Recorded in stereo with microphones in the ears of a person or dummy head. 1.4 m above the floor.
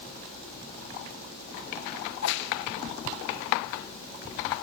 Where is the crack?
60° left (ahead or behind), 1.4 m.